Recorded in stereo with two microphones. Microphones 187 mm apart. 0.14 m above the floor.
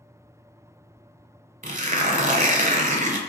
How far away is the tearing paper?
About 0.5 m.